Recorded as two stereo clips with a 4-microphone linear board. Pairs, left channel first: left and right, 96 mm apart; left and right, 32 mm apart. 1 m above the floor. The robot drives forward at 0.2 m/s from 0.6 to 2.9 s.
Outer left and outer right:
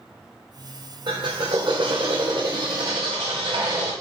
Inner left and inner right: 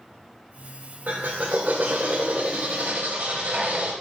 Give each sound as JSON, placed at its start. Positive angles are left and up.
{"t": 1.1, "sound": "a drill", "side_deg": -55, "distance_m": 3.0}